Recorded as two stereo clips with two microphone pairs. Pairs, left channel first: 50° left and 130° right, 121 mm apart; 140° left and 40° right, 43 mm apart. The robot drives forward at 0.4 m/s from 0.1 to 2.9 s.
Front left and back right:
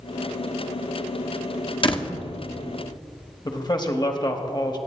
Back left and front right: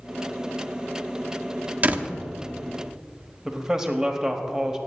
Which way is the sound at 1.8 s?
10° left.